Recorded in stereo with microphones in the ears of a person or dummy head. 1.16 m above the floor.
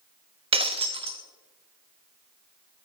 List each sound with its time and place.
0.5 s breaking glass: 30° right (ahead or behind), 0.8 m